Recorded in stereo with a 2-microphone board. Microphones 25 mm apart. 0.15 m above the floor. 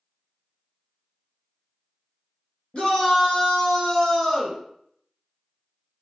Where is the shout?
50° left (ahead or behind), 1.6 m; by 4.6 s 30° left (ahead or behind), 1.3 m.